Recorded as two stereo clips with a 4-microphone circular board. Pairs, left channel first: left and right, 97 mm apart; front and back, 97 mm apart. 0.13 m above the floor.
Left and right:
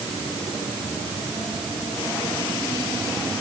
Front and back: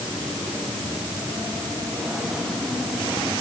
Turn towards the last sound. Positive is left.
No sound to turn to.